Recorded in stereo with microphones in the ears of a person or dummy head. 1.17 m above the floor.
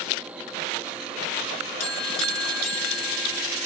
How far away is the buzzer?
About 6.5 m.